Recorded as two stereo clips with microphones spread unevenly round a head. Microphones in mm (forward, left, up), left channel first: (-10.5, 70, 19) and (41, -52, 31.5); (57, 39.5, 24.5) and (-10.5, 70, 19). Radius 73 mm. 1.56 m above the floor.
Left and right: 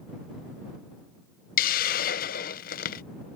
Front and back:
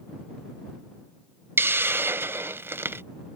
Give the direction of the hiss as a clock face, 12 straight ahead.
9 o'clock.